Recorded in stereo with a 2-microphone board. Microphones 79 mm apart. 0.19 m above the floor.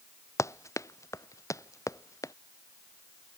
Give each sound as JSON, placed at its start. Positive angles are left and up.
{"t": 0.4, "sound": "running footsteps", "side_deg": 35}